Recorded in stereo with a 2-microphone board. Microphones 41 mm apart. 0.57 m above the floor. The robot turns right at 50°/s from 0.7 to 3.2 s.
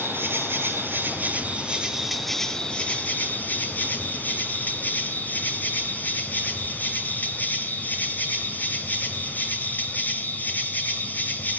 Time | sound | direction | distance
0.0 | an insect | 75° right | 4 m